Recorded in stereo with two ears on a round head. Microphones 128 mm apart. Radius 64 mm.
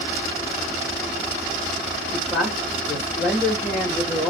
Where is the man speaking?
5° left (ahead or behind), 1.4 m.